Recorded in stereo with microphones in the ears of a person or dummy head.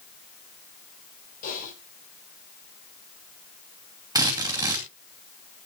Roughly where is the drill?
Centre.